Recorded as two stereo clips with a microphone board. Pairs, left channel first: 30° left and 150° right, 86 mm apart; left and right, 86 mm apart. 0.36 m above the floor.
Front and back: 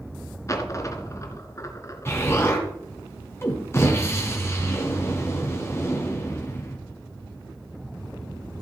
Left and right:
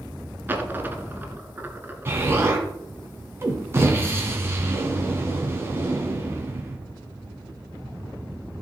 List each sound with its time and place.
0.5 s a dropped coin: 25° right, 1.3 m
2.0 s an explosion: 30° right, 2 m